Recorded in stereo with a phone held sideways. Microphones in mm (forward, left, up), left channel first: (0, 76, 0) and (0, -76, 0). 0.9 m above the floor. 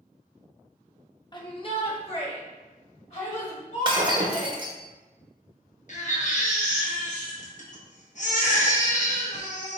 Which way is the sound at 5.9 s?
55° left (ahead or behind).